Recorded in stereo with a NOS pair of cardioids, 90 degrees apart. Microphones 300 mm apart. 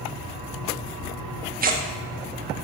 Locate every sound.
1.6 s tearing paper: 30° right, 0.8 m